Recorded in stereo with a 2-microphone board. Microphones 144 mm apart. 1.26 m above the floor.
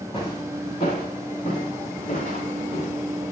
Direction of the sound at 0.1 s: 40° left (ahead or behind).